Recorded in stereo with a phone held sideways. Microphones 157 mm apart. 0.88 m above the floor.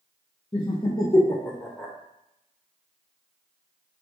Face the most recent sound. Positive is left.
turn(degrees=0)  # may be behind; listen again after turning